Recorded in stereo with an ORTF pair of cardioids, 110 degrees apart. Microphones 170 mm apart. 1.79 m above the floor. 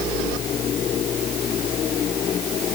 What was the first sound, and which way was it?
Only background noise.